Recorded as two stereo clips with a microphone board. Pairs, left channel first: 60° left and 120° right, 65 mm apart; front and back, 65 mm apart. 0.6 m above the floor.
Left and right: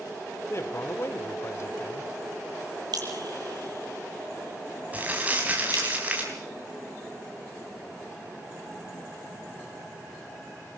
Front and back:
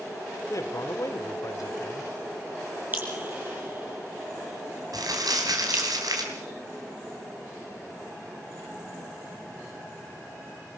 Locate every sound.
0.5 s a man speaking: 20° left, 1.3 m
2.9 s dripping: 120° right, 5 m
4.9 s crumpling: 175° left, 4.5 m